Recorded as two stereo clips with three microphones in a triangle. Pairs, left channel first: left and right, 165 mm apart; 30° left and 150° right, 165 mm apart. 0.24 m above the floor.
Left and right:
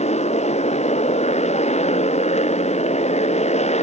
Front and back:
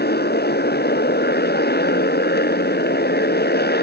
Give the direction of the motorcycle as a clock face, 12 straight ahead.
11 o'clock.